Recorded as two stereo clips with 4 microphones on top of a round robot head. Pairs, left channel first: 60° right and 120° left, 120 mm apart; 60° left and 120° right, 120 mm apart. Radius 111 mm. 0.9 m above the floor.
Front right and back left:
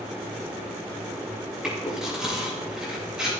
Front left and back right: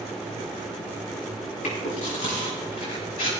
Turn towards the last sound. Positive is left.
turn(degrees=35)